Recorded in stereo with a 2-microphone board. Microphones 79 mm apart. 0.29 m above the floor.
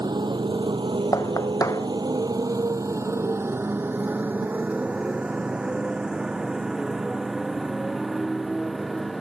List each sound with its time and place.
0.0 s a motorcycle: 65° right (ahead or behind); by 9.2 s centre (ahead or behind)
1.1 s knocking: 45° left (ahead or behind)